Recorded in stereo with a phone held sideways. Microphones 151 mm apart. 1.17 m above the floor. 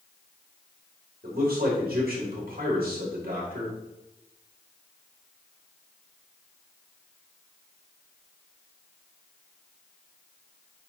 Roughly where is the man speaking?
Right.